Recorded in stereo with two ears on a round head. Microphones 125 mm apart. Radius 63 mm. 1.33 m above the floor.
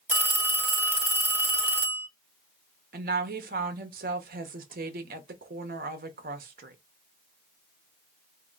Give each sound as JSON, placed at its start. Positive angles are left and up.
{"t": 0.1, "sound": "a phone ringing", "side_deg": -15, "distance_m": 1.2}
{"t": 2.9, "sound": "a woman speaking", "side_deg": -70, "distance_m": 1.1}